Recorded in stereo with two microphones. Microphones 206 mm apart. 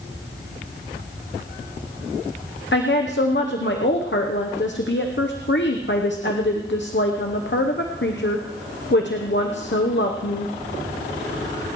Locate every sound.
2.7 s a woman speaking: 60° left (ahead or behind), 0.9 m